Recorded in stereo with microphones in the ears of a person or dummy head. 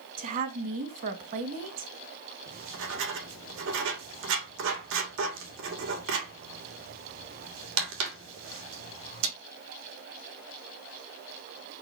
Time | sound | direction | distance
0.2 | a woman speaking | 40° right (ahead or behind) | 2.0 m
2.5 | writing | 65° right (ahead or behind) | 2.5 m